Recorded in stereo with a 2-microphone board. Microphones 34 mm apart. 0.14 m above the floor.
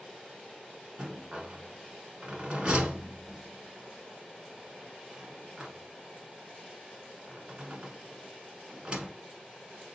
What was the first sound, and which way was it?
A rattle, 35° right (ahead or behind).